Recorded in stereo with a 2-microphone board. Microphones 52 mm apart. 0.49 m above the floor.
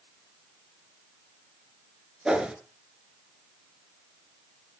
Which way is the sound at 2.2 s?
15° right (ahead or behind).